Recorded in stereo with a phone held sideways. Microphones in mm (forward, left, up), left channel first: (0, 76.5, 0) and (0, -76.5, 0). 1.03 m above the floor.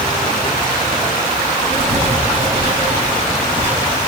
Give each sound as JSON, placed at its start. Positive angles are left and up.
{"t": 1.7, "sound": "writing", "side_deg": -40, "distance_m": 8.0}